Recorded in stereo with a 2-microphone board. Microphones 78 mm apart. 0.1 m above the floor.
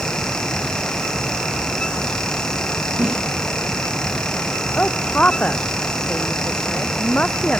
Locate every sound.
3.0 s a whoosh: 15° right (ahead or behind)
4.8 s a woman speaking: 15° left (ahead or behind)